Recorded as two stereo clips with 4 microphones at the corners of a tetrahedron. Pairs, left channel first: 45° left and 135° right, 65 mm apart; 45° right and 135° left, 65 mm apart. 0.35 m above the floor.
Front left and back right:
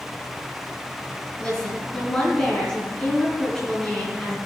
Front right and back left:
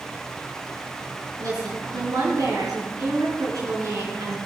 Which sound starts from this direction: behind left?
A woman speaking, at 1.4 s.